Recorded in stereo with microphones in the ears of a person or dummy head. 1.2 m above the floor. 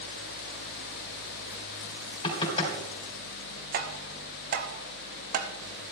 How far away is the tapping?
About 1.2 m.